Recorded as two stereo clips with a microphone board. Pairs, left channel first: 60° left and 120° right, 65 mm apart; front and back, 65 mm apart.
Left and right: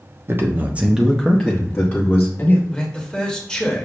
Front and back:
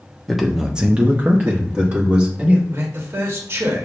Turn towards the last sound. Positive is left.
turn(degrees=135)